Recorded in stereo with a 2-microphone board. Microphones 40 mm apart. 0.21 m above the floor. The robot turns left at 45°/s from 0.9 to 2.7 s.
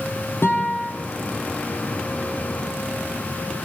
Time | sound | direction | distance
0.4 | a guitar | 75° left (ahead or behind) | 9.5 m